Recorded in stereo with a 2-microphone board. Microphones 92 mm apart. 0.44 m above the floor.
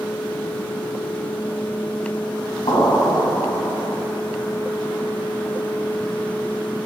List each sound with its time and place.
2.7 s an explosion: 70° left (ahead or behind), 1.3 m